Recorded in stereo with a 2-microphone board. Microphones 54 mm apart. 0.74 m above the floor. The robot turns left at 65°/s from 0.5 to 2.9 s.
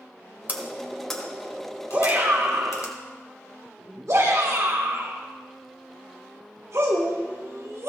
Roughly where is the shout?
Right.